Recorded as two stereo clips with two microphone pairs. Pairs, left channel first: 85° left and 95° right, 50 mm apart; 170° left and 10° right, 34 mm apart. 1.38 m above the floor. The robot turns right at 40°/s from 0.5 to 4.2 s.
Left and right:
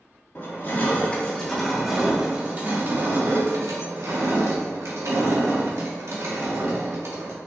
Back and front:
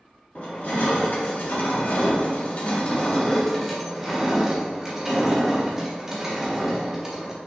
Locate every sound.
0.3 s crushing: 125° left, 2.0 m; by 7.4 s 90° right, 2.0 m